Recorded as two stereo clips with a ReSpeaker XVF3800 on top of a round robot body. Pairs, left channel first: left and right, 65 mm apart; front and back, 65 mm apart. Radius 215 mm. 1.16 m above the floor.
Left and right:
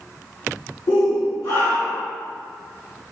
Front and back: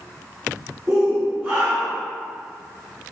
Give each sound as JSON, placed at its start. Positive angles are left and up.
{"t": 0.9, "sound": "a shout", "azimuth_deg": 85, "distance_m": 3.0}